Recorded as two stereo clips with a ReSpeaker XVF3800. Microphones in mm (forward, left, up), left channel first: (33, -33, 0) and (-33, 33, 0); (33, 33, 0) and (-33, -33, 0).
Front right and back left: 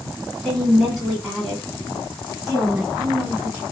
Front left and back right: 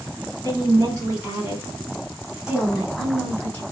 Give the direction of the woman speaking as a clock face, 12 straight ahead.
4 o'clock.